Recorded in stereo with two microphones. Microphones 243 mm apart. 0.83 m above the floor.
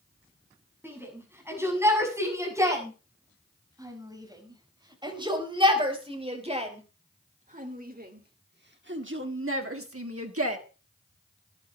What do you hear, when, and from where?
0.8 s a shout: 10° right (ahead or behind), 7.5 m; by 10.6 s 70° right (ahead or behind), 1.8 m